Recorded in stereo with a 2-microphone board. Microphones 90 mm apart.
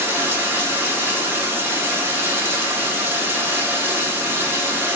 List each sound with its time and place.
0.0 s running water: 25° right (ahead or behind), 0.8 m